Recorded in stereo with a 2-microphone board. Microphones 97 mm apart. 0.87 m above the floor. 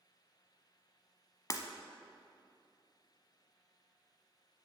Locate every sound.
1.5 s breaking glass: 35° left (ahead or behind), 0.9 m